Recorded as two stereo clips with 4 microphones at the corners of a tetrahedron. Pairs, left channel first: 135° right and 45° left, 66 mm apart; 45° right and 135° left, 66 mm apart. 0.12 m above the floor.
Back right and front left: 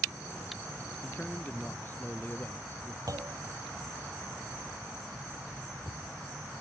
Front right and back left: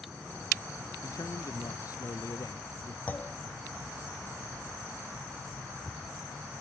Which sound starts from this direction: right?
A man speaking, at 1.0 s.